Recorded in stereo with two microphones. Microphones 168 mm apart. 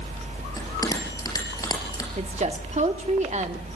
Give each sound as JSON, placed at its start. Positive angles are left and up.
{"t": 0.6, "sound": "a bell", "side_deg": 20, "distance_m": 4.5}
{"t": 2.2, "sound": "a woman speaking", "side_deg": -45, "distance_m": 1.3}